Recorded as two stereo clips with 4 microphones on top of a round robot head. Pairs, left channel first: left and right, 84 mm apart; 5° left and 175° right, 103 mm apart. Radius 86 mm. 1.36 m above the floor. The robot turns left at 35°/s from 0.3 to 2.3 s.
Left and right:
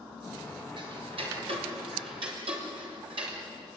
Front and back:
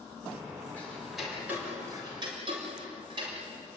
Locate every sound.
0.8 s ticking: 70° right, 4.5 m; by 3.4 s 125° right, 4.5 m